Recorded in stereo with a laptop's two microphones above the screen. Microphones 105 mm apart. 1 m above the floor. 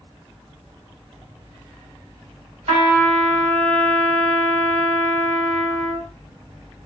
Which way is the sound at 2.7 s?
80° right.